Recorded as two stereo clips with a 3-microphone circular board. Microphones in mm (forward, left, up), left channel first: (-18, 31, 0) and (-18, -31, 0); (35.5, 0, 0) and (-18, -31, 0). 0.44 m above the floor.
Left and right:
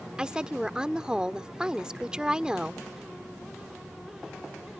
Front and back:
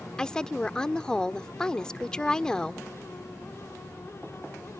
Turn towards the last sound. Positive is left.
turn(degrees=-30)